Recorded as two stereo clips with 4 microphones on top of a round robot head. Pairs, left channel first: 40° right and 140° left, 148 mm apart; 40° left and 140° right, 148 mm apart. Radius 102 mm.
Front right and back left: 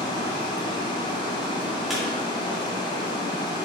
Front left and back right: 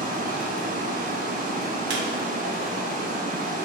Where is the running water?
105° right, 0.7 m.